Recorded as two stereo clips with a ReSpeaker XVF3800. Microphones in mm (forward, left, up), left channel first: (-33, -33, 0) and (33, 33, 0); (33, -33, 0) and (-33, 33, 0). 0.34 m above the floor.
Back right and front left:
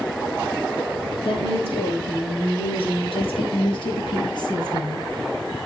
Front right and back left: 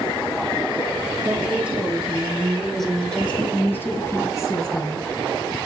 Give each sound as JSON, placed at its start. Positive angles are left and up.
{"t": 1.2, "sound": "a woman speaking", "azimuth_deg": -150, "distance_m": 6.0}